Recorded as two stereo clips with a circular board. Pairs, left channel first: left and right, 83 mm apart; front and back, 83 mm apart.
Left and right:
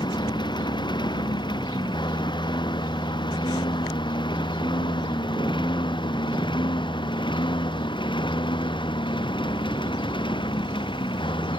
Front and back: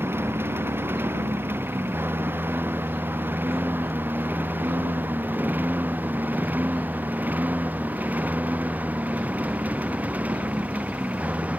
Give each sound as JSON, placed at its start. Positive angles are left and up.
{"t": 0.0, "sound": "a lawn mower", "azimuth_deg": 120}